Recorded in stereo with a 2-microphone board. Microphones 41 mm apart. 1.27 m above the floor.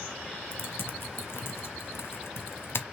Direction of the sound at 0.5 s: 65° left (ahead or behind).